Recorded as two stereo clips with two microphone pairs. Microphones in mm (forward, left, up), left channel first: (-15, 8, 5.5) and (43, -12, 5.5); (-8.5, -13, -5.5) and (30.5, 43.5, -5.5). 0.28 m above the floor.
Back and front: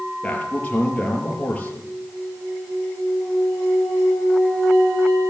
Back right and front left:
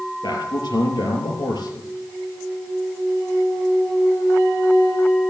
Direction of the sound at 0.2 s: 130° right.